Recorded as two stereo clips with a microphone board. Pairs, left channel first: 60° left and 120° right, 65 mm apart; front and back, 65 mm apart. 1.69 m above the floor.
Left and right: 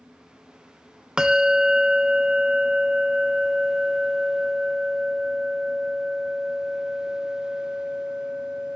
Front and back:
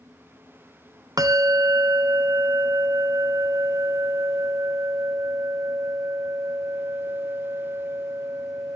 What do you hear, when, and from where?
1.2 s a bell: 160° left, 0.9 m